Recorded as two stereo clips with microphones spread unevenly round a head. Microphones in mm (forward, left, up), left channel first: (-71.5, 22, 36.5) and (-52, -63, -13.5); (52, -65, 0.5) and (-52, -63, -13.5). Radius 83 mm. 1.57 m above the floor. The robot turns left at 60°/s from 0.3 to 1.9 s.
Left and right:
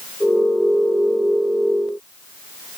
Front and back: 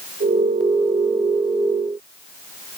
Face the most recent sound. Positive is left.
No sound to turn to.